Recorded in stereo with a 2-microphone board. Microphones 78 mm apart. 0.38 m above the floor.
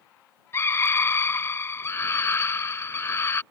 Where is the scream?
35° left (ahead or behind).